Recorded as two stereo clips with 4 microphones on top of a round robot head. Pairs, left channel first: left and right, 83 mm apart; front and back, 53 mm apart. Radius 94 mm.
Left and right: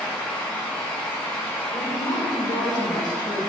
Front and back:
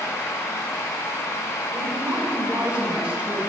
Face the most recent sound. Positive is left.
turn(degrees=115)